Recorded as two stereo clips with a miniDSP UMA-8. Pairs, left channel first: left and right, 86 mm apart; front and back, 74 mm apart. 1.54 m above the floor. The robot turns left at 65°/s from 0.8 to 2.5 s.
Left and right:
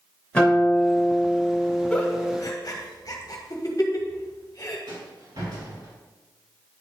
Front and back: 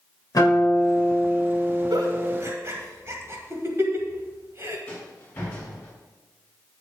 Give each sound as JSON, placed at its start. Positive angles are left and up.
{"t": 0.3, "sound": "a guitar", "azimuth_deg": 15, "distance_m": 3.0}
{"t": 1.9, "sound": "a giggle", "azimuth_deg": 170, "distance_m": 1.2}
{"t": 4.9, "sound": "a rattle", "azimuth_deg": -65, "distance_m": 3.0}